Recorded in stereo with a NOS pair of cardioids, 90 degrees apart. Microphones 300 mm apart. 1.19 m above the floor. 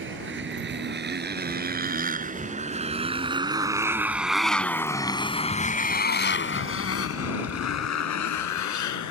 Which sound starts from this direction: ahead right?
A motorcycle, at 0.0 s.